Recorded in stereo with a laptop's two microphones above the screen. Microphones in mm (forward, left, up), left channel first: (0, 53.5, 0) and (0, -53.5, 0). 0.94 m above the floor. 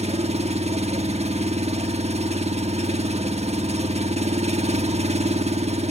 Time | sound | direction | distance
0.0 | an engine running | 85° right | 1.0 m